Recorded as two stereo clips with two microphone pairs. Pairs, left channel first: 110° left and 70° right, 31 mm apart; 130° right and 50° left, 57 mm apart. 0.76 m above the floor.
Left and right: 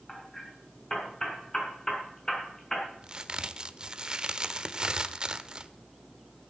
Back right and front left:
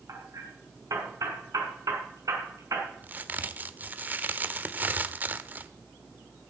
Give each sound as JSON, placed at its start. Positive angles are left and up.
{"t": 0.1, "sound": "hammering", "azimuth_deg": 40, "distance_m": 5.0}
{"t": 3.0, "sound": "a crack", "azimuth_deg": -10, "distance_m": 1.0}